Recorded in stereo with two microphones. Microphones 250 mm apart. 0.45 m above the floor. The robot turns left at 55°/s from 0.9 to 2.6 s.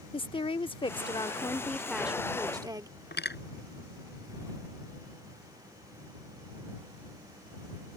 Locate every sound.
0.1 s a woman speaking: 20° left (ahead or behind); by 2.9 s 15° right (ahead or behind)
3.1 s cutlery clinking: 40° left (ahead or behind)